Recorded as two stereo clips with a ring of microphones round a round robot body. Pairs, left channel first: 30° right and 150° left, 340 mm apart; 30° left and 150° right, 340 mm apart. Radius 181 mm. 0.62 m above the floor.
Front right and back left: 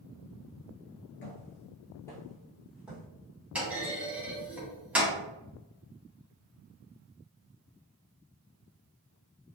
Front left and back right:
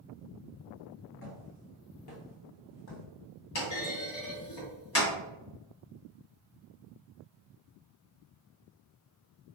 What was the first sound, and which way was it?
Footsteps, 5° left.